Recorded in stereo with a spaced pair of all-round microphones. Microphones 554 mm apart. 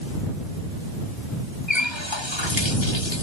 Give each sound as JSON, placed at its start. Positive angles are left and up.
{"t": 1.7, "sound": "a running tap", "side_deg": 50}